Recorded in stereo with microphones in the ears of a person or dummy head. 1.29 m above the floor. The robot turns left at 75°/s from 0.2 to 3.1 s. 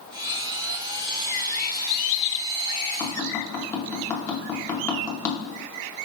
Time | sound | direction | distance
3.0 | tapping | 25° left (ahead or behind) | 0.9 m